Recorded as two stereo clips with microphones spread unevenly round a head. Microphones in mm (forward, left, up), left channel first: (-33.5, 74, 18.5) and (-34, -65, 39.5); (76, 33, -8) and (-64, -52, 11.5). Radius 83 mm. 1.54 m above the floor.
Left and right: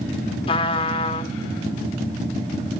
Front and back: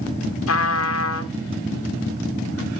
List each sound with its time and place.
0.5 s a trumpet: 25° left, 1.2 m